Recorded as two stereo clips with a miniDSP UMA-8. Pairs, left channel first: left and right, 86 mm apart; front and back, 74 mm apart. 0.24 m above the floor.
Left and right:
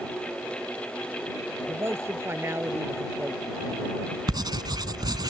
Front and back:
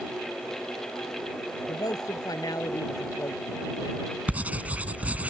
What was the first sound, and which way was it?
A man speaking, 30° right.